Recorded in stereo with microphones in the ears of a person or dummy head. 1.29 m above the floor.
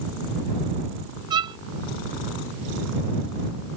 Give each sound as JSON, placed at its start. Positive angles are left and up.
{"t": 1.3, "sound": "a violin", "side_deg": -25}